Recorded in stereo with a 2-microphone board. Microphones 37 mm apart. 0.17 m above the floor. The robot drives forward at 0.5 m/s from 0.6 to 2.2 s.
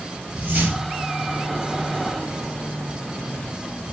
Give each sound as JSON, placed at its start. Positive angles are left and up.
{"t": 0.3, "sound": "a whoosh", "side_deg": -40, "distance_m": 3.5}